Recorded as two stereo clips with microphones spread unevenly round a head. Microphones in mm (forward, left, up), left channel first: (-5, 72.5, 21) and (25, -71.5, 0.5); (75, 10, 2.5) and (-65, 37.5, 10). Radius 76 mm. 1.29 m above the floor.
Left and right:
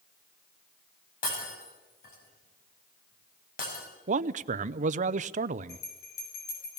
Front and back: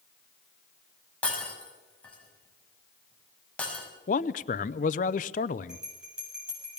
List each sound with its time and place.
1.2 s breaking glass: 70° left, 5.5 m
4.1 s a man speaking: 45° right, 0.5 m
5.7 s a bell: 85° left, 7.5 m